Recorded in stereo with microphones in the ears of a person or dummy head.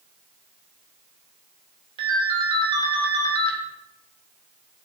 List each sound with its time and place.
2.0 s a ringtone: 35° right (ahead or behind), 0.9 m